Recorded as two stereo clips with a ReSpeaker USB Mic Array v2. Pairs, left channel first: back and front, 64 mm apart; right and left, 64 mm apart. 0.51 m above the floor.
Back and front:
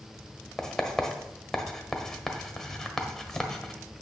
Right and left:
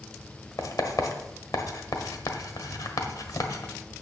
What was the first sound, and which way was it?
Writing, 95° right.